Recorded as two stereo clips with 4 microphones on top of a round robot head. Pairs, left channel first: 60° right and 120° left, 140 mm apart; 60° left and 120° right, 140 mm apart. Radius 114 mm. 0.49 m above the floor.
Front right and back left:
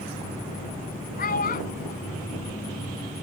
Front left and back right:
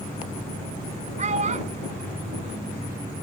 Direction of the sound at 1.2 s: 80° right.